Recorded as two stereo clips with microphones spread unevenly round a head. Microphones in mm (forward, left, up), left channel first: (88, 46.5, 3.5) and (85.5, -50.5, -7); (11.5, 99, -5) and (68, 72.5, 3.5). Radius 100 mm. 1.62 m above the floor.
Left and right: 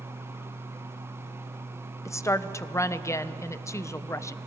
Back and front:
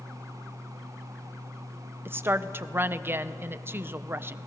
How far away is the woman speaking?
About 1.0 m.